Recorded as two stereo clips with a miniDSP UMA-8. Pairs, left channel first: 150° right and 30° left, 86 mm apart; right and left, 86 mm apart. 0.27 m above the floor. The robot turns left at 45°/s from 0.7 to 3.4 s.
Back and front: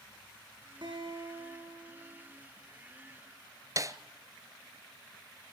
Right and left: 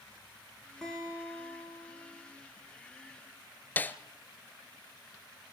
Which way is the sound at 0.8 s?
5° right.